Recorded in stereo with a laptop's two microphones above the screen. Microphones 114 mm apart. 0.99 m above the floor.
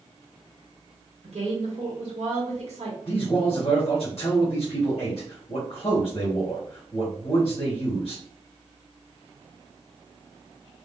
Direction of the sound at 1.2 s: 65° right (ahead or behind).